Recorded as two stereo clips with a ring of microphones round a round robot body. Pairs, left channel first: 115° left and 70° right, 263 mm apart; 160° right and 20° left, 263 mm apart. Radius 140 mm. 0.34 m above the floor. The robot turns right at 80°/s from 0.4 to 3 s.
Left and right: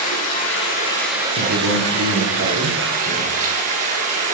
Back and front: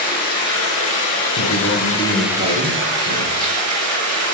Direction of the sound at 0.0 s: 145° left.